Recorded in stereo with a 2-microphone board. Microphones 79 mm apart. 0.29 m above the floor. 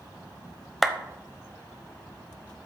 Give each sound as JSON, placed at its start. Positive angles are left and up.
{"t": 0.8, "sound": "a clap", "side_deg": 0, "distance_m": 0.8}